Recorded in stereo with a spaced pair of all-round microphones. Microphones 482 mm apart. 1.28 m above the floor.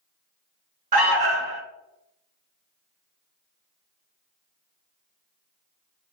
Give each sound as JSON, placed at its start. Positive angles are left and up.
{"t": 0.9, "sound": "an alarm", "side_deg": -50, "distance_m": 0.5}